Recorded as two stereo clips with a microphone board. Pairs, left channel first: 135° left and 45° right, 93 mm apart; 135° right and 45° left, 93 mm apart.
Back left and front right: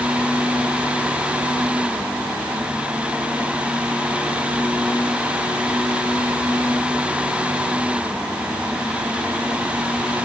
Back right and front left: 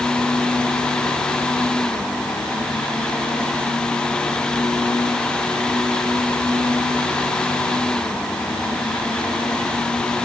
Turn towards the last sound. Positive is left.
No sound to turn to.